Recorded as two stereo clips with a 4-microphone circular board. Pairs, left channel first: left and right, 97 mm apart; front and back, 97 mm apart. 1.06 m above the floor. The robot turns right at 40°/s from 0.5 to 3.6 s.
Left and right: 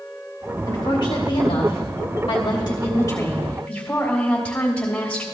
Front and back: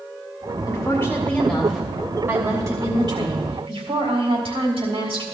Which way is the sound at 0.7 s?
50° left.